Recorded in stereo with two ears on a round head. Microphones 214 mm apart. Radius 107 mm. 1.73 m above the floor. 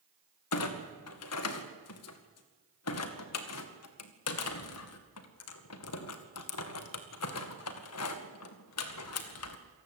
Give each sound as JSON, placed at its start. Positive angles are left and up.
{"t": 0.5, "sound": "a clunk", "side_deg": 70, "distance_m": 2.0}